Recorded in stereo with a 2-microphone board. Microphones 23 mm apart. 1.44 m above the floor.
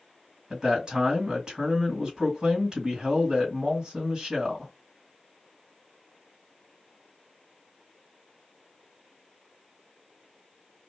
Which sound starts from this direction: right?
A man speaking, at 0.5 s.